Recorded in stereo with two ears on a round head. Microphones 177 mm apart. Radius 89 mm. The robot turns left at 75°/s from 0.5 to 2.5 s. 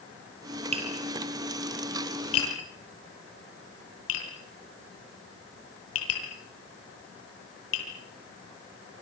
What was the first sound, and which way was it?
Tapping, 35° right (ahead or behind).